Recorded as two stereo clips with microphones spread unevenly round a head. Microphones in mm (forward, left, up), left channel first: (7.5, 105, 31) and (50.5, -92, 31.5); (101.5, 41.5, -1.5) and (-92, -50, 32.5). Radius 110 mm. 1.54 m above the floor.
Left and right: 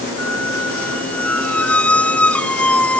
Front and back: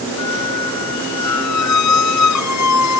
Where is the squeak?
20° left.